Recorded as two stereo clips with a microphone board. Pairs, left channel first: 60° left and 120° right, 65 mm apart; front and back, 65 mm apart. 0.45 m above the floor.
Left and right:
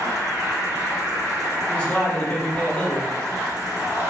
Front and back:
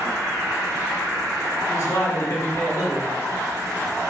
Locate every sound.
0.0 s an insect: 145° right, 1.3 m
1.7 s a man speaking: straight ahead, 1.1 m